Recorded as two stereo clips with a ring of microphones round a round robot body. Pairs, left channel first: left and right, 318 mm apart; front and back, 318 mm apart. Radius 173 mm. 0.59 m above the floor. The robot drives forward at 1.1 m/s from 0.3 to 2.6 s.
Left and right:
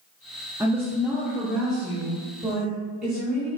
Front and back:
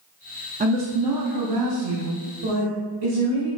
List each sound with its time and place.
0.6 s a woman speaking: 160° right, 0.7 m; by 3.5 s straight behind, 2.5 m